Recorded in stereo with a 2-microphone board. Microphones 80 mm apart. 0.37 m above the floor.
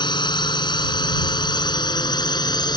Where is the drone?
75° left (ahead or behind); by 2.8 s 65° left (ahead or behind).